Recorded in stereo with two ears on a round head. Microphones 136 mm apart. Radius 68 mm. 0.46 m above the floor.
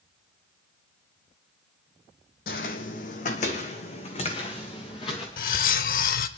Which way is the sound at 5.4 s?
65° left (ahead or behind).